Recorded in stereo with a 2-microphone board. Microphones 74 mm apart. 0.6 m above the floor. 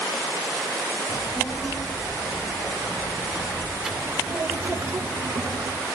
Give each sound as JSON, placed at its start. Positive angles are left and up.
{"t": 1.1, "sound": "a child speaking", "side_deg": 10, "distance_m": 4.5}